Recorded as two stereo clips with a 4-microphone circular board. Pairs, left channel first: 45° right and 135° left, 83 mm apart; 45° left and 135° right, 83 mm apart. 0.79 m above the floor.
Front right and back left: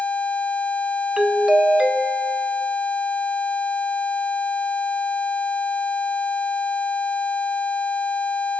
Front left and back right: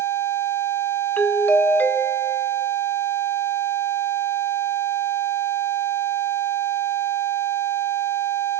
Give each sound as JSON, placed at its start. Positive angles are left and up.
{"t": 1.2, "sound": "a doorbell", "azimuth_deg": 70, "distance_m": 0.9}